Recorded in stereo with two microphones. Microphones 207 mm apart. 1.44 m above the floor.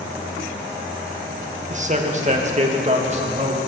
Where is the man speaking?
35° right (ahead or behind), 1.5 m.